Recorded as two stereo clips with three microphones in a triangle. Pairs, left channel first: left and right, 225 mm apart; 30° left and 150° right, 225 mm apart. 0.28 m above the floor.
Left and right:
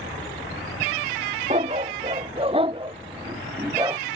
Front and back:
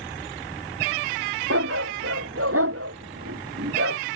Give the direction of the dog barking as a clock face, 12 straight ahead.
5 o'clock.